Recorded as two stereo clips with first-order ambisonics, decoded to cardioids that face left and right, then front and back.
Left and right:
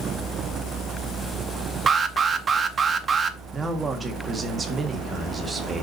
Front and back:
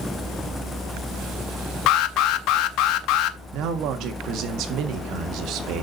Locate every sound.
1.9 s an alarm: 25° right, 0.7 m
3.5 s a man speaking: 160° right, 1.5 m